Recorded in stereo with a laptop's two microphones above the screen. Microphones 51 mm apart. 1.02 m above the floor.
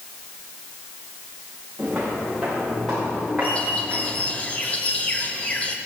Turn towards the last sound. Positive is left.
turn(degrees=25)  # may be behind; listen again after turning